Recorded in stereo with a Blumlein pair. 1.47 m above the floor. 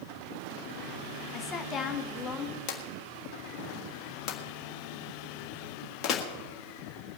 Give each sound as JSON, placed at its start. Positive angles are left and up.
{"t": 1.3, "sound": "a woman speaking", "azimuth_deg": 25, "distance_m": 1.2}
{"t": 2.7, "sound": "a drawer", "azimuth_deg": 30, "distance_m": 1.6}